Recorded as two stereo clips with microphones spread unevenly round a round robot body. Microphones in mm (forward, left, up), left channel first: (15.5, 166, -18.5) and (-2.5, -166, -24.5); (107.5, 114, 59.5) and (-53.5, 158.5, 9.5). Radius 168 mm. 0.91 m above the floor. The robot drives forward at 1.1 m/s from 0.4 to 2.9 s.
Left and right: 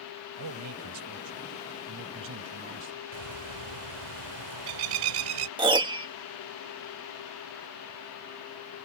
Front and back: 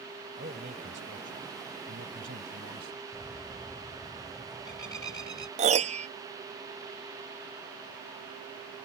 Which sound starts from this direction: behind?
A piano, at 5.6 s.